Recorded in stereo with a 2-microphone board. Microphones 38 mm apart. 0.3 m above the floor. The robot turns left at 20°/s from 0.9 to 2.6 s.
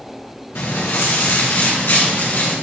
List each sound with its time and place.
0.6 s footsteps: 85° left, 3 m; by 2.5 s 60° left (ahead or behind), 4.5 m